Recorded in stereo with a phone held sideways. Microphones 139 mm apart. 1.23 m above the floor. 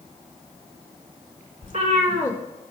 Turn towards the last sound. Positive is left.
turn(degrees=-65)  # may be behind; listen again after turning